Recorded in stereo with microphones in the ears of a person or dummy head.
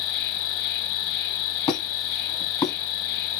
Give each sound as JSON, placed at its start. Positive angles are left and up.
{"t": 0.0, "sound": "an insect", "side_deg": 25, "distance_m": 1.3}
{"t": 1.7, "sound": "a squeak", "side_deg": 25, "distance_m": 2.5}